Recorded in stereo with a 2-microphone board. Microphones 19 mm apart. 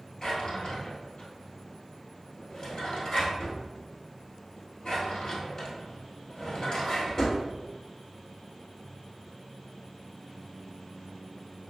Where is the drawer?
35° left (ahead or behind), 1.4 m.